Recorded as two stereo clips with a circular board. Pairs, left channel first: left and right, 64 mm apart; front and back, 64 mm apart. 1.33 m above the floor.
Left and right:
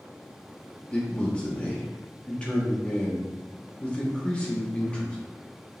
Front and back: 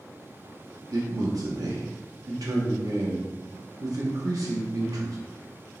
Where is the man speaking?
165° left, 1.1 m.